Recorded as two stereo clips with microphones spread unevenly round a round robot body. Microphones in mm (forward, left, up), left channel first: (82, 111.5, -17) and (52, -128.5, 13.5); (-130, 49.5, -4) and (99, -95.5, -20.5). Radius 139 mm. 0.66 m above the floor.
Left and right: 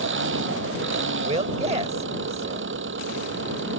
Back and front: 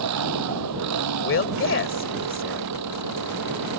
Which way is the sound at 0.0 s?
60° right.